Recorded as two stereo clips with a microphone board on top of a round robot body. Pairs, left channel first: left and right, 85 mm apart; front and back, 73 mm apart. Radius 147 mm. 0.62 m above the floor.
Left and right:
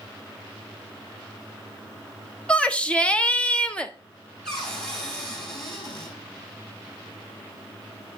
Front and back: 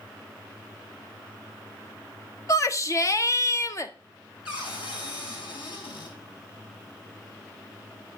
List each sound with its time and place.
2.5 s a shout: 15° left, 1.3 m
4.5 s a cupboard door: 5° left, 5 m